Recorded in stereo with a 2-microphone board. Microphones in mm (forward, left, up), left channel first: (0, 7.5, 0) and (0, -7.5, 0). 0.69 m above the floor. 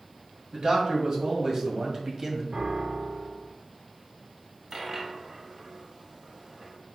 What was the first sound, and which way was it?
A man speaking, 55° right (ahead or behind).